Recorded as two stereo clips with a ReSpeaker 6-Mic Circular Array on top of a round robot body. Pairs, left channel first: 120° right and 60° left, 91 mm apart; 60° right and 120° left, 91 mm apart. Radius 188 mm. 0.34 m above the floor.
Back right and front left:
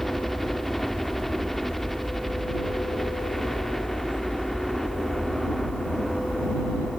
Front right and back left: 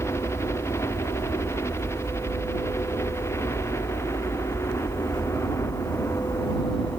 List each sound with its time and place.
0.0 s a helicopter: 35° right